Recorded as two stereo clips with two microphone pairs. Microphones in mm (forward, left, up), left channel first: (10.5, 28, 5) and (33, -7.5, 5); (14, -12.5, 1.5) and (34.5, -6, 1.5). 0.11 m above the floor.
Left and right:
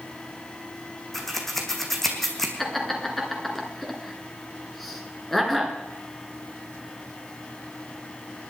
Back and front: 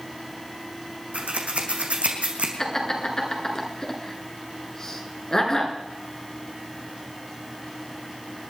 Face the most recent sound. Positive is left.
turn(degrees=-155)